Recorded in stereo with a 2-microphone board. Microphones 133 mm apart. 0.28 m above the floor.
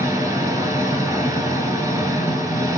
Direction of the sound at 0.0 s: 25° right (ahead or behind).